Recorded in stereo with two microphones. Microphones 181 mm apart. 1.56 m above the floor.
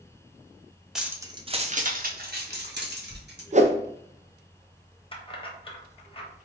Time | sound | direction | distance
0.9 | keys jangling | centre (ahead or behind) | 0.6 m
3.5 | a whoosh | 40° right (ahead or behind) | 0.6 m
5.1 | keys jangling | 30° left (ahead or behind) | 0.9 m